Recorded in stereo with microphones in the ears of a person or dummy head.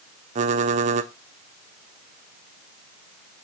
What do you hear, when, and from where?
0.3 s typing on a keyboard: 40° right (ahead or behind), 0.6 m